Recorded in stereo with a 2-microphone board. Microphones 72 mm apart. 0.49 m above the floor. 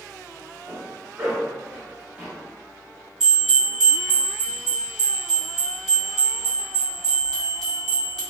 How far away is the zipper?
About 1.3 m.